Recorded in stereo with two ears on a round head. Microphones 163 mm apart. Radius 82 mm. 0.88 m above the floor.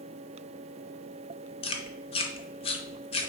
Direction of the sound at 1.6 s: 30° left (ahead or behind).